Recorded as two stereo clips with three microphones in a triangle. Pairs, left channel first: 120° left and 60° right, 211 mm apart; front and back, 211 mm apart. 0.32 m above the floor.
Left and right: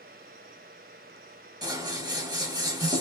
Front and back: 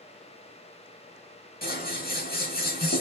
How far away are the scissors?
About 0.9 m.